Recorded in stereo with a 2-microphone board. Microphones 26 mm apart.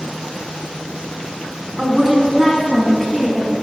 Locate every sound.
1.8 s a woman speaking: 20° right (ahead or behind), 1.1 m; by 3.5 s 15° left (ahead or behind), 1.2 m